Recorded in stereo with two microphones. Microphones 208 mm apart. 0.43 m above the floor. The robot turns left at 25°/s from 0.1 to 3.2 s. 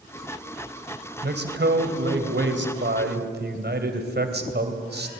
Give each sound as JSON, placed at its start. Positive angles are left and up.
{"t": 1.2, "sound": "a man speaking", "azimuth_deg": -65, "distance_m": 2.5}